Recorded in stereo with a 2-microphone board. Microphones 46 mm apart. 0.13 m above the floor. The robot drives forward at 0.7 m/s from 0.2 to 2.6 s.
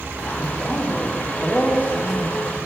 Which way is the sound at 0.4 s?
30° left (ahead or behind).